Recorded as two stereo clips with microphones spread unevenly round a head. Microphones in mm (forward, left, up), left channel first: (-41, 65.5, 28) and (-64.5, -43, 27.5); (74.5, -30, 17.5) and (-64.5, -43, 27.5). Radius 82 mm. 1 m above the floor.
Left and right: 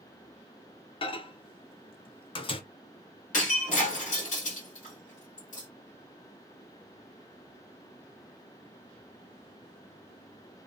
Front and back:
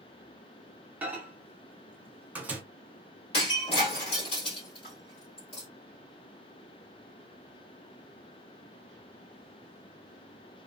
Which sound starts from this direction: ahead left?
Breaking glass, at 3.3 s.